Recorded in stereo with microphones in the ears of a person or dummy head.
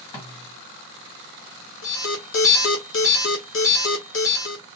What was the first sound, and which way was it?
A snare drum, 30° left (ahead or behind).